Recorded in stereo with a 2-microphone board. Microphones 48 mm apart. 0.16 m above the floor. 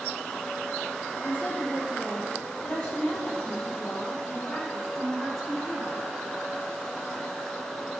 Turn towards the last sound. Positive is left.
turn(degrees=5)  # may be behind; listen again after turning